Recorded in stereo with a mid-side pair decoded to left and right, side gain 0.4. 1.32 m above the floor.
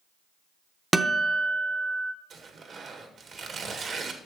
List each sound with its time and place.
0.9 s a guitar: 15° right, 1.0 m
2.3 s tearing paper: 55° right, 1.8 m